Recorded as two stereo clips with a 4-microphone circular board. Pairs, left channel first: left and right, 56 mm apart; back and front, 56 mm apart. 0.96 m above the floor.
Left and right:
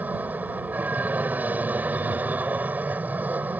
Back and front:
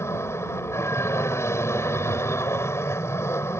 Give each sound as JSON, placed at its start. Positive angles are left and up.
{"t": 0.0, "sound": "an aircraft", "azimuth_deg": -150}